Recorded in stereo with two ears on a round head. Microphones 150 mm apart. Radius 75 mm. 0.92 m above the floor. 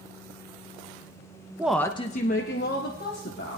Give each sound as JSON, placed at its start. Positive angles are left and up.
{"t": 1.6, "sound": "a woman speaking", "side_deg": -10, "distance_m": 0.6}